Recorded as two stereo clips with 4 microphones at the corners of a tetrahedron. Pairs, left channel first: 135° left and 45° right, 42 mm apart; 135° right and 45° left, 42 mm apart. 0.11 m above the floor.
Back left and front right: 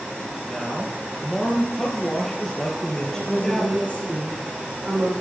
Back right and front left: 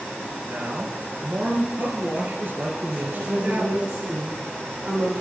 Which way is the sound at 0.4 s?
60° left.